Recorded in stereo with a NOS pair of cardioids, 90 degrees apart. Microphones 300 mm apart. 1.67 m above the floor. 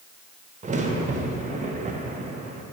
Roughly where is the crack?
Ahead right.